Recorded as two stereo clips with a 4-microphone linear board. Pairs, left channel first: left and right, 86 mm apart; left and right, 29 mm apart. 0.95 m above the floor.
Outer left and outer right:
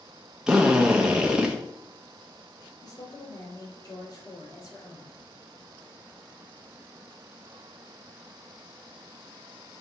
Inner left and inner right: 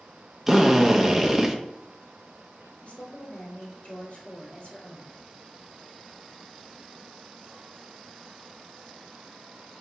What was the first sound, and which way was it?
A drill, 10° right (ahead or behind).